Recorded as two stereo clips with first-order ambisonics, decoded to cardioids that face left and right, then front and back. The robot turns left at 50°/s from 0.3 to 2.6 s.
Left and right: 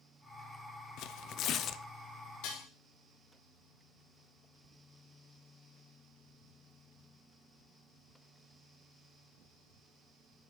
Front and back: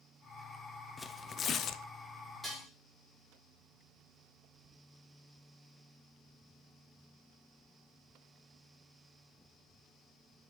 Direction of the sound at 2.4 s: 100° left.